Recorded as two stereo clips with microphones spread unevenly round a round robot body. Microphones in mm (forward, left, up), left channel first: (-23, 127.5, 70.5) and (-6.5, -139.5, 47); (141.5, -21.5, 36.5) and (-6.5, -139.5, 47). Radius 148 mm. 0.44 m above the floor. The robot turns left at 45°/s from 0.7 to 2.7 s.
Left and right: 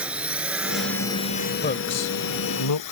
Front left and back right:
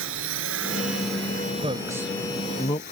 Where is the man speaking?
155° left; by 2.9 s 105° left.